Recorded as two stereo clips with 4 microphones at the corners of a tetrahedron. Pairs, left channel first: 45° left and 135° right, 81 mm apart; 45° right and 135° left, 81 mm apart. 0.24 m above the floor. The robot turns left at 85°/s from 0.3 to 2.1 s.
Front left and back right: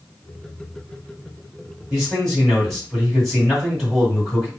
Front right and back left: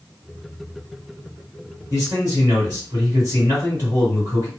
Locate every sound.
1.9 s a man speaking: 160° left, 1.9 m; by 4.5 s 140° left, 1.9 m